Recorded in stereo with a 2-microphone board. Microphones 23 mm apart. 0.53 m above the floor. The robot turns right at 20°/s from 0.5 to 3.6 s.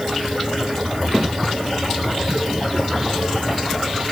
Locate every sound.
Only background noise.